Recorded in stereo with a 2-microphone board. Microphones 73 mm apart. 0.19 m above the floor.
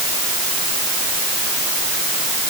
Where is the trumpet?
No trumpet in this recording.